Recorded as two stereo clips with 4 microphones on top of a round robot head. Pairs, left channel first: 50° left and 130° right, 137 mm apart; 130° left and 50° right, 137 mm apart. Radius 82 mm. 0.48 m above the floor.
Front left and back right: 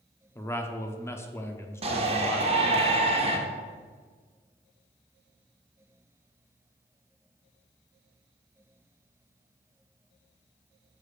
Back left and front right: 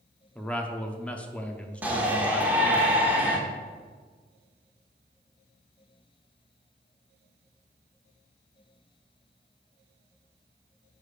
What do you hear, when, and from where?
0.3 s a man speaking: 70° left, 0.7 m
1.8 s a shout: 120° right, 1.3 m